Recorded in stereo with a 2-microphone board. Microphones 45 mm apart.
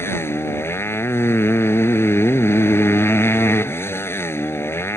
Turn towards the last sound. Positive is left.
turn(degrees=75)  # may be behind; listen again after turning